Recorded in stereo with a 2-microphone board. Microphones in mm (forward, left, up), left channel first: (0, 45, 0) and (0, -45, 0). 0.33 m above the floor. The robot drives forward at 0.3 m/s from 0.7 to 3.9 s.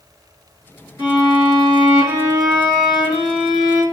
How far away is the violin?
About 1.7 m.